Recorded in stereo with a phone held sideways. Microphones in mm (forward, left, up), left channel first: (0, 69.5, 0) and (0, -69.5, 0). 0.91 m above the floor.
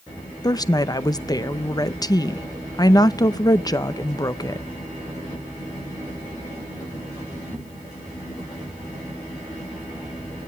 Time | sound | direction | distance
0.4 | a woman speaking | 25° left (ahead or behind) | 0.6 m